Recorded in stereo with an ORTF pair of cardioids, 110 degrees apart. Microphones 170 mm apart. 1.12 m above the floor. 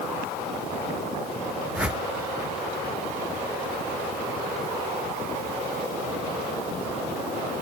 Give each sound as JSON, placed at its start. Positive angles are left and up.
{"t": 1.8, "sound": "a whoosh", "azimuth_deg": -5, "distance_m": 1.3}